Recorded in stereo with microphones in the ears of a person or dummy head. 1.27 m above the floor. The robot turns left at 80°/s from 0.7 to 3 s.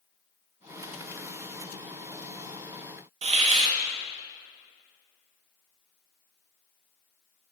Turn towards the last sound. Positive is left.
turn(degrees=-30)  # may be behind; listen again after turning